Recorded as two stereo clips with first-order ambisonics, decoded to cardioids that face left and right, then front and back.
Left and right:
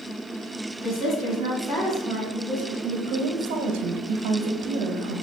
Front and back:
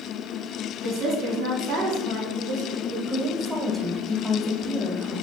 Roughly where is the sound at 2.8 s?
Right.